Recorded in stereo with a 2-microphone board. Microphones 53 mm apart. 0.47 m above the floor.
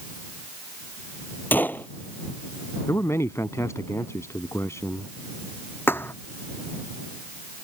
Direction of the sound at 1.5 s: 35° left (ahead or behind).